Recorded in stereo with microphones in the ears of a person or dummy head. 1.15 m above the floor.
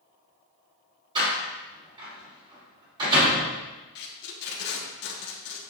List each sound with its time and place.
1.1 s a door slam: 25° right (ahead or behind), 3 m
4.0 s tape being pulled: 55° left (ahead or behind), 1.3 m